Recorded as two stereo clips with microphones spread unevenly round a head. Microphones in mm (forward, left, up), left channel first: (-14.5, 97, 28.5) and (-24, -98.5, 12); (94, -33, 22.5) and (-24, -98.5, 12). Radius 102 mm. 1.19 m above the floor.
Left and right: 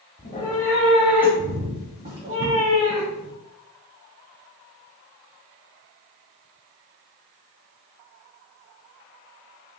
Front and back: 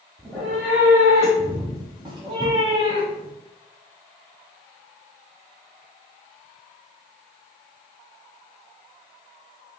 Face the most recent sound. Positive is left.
turn(degrees=-100)